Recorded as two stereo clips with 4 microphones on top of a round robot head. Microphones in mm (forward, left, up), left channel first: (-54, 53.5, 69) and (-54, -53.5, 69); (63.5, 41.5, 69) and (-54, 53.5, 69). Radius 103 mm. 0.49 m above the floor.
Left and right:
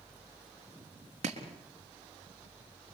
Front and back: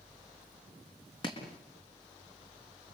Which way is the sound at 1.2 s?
60° right.